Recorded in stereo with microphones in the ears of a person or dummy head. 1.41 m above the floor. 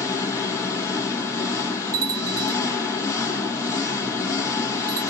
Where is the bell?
50° right (ahead or behind), 1.1 m.